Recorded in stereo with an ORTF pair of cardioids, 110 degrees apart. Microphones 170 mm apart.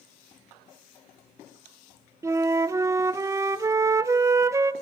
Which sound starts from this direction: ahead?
A flute, at 2.2 s.